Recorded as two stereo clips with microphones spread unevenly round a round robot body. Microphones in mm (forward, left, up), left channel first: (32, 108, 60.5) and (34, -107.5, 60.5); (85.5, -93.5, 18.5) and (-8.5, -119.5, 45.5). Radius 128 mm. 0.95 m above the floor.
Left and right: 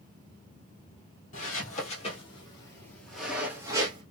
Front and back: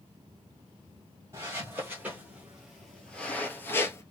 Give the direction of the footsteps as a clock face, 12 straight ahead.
7 o'clock.